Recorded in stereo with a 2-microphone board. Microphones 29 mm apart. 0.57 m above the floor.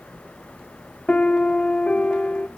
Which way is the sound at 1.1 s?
45° left (ahead or behind).